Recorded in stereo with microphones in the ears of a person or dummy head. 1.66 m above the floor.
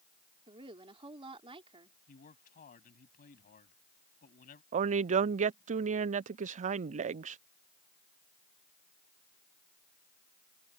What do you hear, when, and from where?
0.5 s a woman speaking: 30° right (ahead or behind)
2.1 s a man speaking: 55° left (ahead or behind)
4.7 s a woman speaking: 40° right (ahead or behind)